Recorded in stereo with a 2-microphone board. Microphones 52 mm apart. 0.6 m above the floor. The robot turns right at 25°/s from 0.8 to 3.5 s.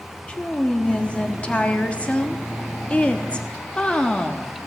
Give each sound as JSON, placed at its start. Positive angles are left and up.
{"t": 0.3, "sound": "a woman speaking", "side_deg": 20, "distance_m": 0.8}